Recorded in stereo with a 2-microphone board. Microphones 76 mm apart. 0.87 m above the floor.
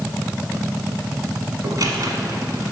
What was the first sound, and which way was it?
A squeak, 55° right (ahead or behind).